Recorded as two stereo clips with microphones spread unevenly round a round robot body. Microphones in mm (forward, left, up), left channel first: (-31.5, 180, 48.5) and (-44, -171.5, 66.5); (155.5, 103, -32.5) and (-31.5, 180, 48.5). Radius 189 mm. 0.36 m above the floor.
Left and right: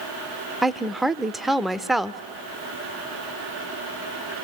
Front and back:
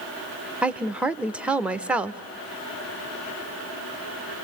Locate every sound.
0.6 s a woman speaking: 5° left, 0.9 m